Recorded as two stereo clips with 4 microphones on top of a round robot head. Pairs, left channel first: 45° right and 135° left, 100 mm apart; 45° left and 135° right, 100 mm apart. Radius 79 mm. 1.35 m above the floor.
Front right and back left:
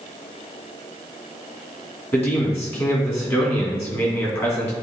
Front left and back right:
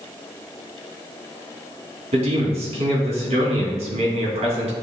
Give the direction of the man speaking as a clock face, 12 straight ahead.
4 o'clock.